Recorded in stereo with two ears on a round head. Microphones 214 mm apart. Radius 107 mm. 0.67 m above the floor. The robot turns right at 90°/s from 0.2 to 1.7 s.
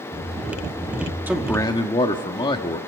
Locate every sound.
1.3 s a man speaking: 10° right, 1.4 m; by 2.8 s 30° left, 1.4 m